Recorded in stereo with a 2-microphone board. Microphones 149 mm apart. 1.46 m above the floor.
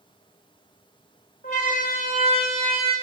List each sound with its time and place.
1.4 s a siren: 75° left (ahead or behind), 5.5 m